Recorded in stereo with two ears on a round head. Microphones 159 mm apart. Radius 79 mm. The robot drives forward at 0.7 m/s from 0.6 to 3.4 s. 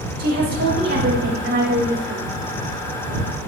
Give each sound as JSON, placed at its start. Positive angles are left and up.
{"t": 0.2, "sound": "a woman speaking", "side_deg": -55, "distance_m": 4.0}